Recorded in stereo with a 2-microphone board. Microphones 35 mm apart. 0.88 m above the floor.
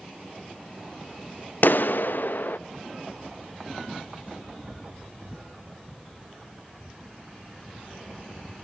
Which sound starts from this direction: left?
A clap, at 1.6 s.